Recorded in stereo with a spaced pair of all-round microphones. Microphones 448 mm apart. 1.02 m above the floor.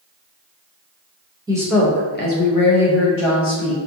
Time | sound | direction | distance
1.5 | a woman speaking | 10° right (ahead or behind) | 0.9 m